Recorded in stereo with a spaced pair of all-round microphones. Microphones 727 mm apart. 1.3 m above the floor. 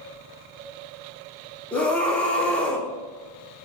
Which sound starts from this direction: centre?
A scream, at 1.7 s.